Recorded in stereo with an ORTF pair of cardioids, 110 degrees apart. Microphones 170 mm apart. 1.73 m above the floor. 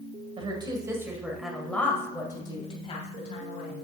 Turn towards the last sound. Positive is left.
turn(degrees=45)